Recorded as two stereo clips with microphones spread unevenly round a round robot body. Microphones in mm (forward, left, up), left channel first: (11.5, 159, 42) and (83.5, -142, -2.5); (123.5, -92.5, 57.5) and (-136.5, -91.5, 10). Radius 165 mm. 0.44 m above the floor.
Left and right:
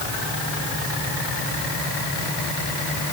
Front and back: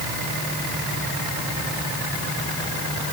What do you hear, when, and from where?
Only background noise.